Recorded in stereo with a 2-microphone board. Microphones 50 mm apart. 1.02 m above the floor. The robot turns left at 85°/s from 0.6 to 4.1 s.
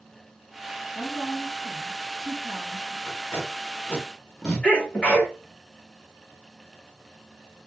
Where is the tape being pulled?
70° left (ahead or behind), 0.9 m; by 4.7 s 15° left (ahead or behind), 0.9 m.